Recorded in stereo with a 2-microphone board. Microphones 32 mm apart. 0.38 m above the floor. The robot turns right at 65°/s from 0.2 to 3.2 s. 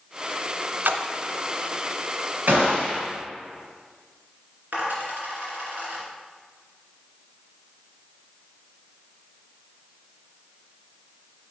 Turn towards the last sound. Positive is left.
turn(degrees=-75)  # may be behind; listen again after turning